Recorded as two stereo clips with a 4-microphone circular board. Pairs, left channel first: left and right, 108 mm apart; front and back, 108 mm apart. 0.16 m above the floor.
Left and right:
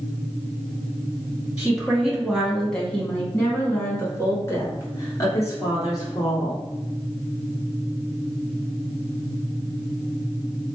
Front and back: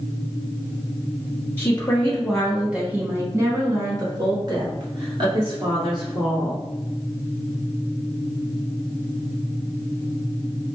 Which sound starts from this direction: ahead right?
A woman speaking, at 1.6 s.